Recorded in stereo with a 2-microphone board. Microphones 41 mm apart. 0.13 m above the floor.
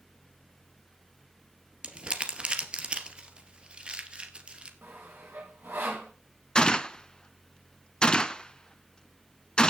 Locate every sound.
1.8 s crumpling: 30° right (ahead or behind), 2 m
4.8 s sawing: 65° right (ahead or behind), 7.5 m
6.5 s a gunshot: 20° left (ahead or behind), 0.7 m